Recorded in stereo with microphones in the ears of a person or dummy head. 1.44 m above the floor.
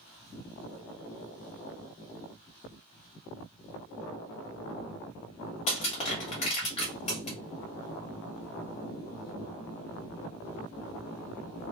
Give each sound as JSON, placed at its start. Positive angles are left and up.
{"t": 5.7, "sound": "crushing", "side_deg": 30, "distance_m": 0.9}